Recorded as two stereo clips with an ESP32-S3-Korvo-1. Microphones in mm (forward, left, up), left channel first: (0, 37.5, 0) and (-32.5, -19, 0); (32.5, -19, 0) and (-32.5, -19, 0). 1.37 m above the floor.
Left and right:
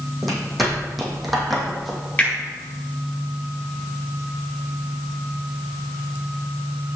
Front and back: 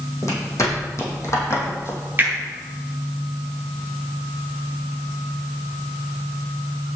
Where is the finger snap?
120° left, 4.5 m.